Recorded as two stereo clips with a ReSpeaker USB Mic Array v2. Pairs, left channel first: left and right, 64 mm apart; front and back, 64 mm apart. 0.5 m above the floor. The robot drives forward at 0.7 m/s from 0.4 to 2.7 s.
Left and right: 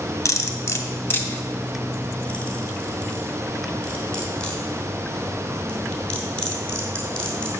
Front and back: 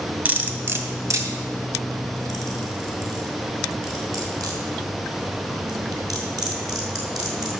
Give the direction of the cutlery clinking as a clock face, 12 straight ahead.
8 o'clock.